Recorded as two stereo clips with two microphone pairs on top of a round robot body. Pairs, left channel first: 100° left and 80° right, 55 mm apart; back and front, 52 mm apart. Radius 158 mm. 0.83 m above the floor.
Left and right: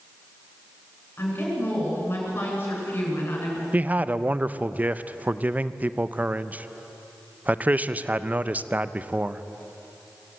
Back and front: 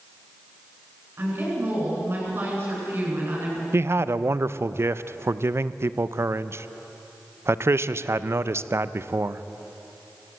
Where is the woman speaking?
50° left, 9 m.